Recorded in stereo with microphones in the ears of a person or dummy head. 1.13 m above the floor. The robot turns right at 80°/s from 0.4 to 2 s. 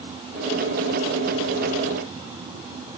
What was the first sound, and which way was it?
Only background noise.